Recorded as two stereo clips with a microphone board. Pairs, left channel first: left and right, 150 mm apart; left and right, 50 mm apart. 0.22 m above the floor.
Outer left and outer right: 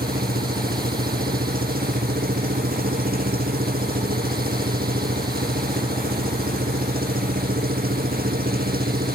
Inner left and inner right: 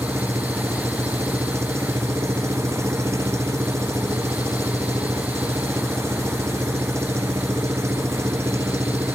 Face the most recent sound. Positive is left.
turn(degrees=-85)